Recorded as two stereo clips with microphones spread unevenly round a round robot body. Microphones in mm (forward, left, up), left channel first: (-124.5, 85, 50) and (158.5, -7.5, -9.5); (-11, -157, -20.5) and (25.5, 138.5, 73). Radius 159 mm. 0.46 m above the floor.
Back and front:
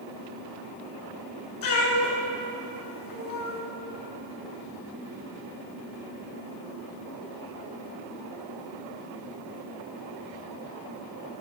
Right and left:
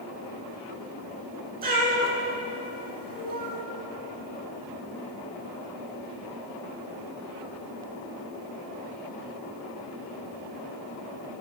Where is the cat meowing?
145° left, 2.5 m.